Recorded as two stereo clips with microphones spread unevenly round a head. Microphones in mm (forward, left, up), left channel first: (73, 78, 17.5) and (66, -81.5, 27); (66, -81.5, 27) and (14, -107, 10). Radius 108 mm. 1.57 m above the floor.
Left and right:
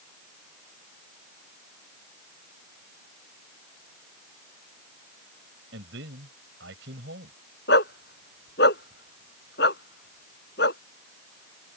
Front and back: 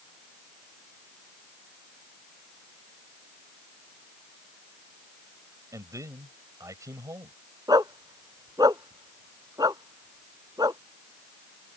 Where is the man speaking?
125° right.